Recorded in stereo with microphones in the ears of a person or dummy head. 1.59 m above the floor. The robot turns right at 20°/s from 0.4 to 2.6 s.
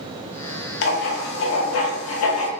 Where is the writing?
60° left, 0.6 m; by 2.5 s 95° left, 0.6 m.